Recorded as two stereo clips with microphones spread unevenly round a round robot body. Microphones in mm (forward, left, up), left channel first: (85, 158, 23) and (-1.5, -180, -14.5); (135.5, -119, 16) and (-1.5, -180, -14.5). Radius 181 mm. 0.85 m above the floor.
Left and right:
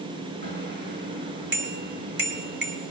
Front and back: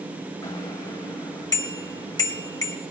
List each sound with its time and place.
0.4 s a bicycle bell: 45° right, 3 m